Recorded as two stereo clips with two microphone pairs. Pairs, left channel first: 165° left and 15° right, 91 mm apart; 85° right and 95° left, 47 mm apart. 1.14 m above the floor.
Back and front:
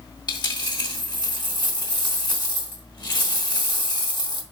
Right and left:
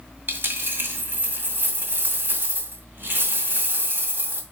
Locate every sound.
0.3 s a dropped coin: 130° left, 2.0 m